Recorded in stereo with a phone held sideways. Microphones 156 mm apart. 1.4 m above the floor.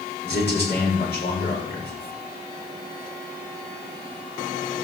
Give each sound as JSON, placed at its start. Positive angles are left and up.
{"t": 0.2, "sound": "a man speaking", "side_deg": 85, "distance_m": 5.0}